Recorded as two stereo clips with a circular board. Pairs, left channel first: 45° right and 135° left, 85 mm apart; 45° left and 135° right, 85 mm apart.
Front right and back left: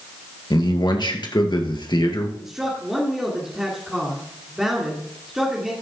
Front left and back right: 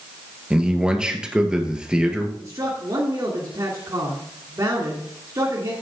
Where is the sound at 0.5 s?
55° right, 2 m.